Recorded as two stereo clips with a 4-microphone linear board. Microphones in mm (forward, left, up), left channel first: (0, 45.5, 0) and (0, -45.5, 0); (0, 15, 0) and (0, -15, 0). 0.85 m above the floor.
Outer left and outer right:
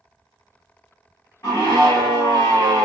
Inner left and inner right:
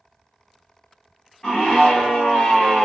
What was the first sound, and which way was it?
A scream, 35° left (ahead or behind).